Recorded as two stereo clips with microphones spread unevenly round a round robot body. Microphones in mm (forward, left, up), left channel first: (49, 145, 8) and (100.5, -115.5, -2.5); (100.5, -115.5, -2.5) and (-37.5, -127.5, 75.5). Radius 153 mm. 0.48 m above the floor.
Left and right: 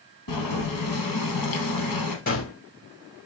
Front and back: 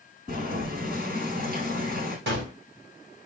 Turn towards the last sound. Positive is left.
turn(degrees=165)